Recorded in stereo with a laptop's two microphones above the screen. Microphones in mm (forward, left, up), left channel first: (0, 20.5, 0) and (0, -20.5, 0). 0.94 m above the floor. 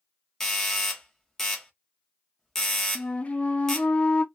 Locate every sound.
0.4 s a doorbell: 10° left (ahead or behind), 0.7 m
3.0 s a flute: 30° left (ahead or behind), 0.5 m